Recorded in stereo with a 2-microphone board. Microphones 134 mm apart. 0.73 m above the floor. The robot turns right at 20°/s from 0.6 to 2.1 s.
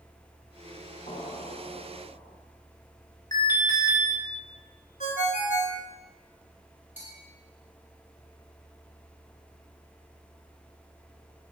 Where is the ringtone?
70° left (ahead or behind), 0.9 m.